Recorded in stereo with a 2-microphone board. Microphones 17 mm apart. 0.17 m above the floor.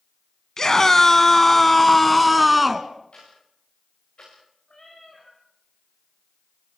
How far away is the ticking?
About 9 m.